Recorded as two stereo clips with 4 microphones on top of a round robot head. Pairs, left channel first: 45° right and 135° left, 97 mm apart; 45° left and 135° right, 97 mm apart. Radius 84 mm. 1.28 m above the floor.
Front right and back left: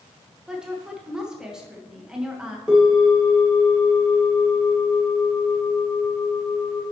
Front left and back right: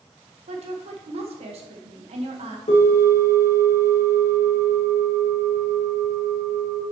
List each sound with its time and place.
0.5 s a woman speaking: 145° right, 1.4 m
2.7 s a bell: 55° left, 2 m